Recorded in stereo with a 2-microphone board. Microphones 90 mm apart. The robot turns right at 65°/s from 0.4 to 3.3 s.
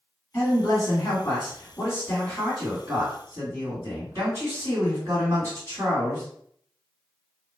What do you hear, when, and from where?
0.3 s a man speaking: 40° left, 1.8 m; by 6.2 s 130° right, 1.8 m